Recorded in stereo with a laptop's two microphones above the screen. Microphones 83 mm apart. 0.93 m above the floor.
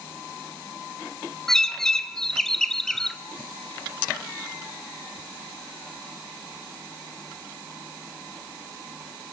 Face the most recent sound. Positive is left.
turn(degrees=5)  # may be behind; listen again after turning